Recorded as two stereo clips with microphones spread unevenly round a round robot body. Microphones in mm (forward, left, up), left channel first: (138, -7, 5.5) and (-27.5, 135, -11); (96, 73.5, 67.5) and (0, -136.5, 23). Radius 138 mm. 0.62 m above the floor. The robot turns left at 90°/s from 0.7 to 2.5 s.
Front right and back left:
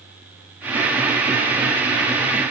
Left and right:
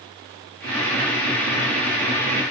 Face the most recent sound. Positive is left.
No sound to turn to.